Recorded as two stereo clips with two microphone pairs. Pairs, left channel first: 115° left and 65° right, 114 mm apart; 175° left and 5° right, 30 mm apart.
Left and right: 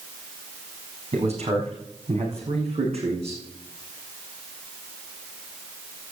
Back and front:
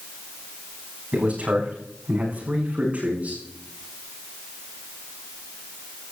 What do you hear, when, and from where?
1.1 s a man speaking: 45° right, 7 m; by 3.4 s 40° right, 8 m